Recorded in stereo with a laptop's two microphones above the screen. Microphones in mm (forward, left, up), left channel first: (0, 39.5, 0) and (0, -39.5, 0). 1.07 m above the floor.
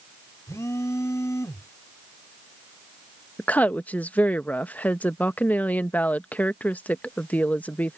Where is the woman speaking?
20° left (ahead or behind).